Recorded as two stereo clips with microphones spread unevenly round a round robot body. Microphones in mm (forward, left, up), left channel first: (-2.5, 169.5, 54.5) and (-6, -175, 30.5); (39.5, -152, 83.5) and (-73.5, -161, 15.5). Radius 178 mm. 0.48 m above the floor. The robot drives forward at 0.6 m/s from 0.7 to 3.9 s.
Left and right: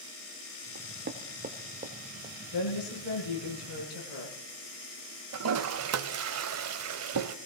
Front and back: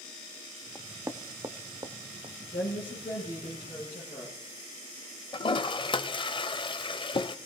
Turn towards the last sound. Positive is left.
turn(degrees=-40)